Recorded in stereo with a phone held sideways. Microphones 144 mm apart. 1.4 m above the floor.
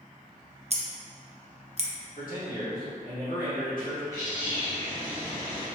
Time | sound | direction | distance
0.7 | scissors | 50° right (ahead or behind) | 0.6 m
2.2 | a man speaking | 75° left (ahead or behind) | 1.6 m
4.1 | a bird | 25° left (ahead or behind) | 1.2 m